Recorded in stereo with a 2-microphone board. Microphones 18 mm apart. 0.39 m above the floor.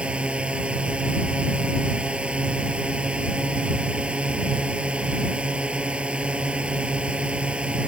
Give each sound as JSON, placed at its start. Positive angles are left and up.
{"t": 0.0, "sound": "a drone", "side_deg": -80}